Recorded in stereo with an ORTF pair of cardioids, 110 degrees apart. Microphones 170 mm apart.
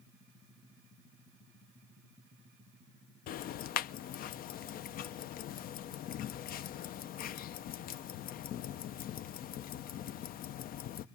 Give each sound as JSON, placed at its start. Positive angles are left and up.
{"t": 3.3, "sound": "ticking", "azimuth_deg": 65, "distance_m": 0.7}